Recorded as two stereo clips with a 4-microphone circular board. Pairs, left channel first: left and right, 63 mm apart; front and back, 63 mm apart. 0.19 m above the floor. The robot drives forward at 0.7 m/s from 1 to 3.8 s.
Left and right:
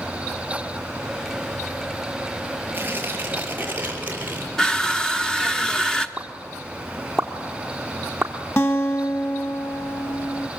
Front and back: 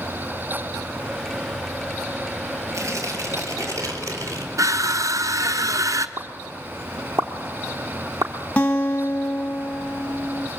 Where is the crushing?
170° left, 1.0 m.